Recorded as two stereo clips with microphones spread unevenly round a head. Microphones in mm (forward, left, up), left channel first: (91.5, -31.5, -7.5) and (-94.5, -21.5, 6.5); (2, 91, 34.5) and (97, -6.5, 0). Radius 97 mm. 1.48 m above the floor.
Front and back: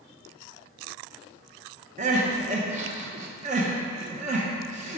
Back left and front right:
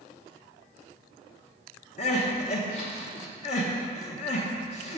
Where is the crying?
130° left, 0.7 m.